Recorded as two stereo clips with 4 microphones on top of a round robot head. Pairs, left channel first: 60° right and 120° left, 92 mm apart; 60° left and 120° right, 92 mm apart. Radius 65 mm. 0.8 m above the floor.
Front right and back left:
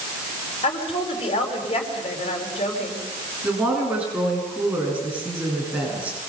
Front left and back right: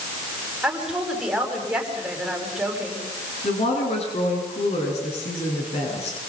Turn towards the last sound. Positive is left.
turn(degrees=45)